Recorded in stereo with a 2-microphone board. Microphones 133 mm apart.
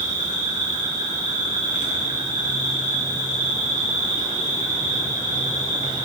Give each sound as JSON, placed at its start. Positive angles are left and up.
{"t": 0.0, "sound": "an insect", "side_deg": 65, "distance_m": 1.1}